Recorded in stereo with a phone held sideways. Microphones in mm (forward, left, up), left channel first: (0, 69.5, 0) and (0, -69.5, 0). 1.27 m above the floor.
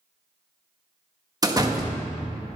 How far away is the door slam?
About 1.5 m.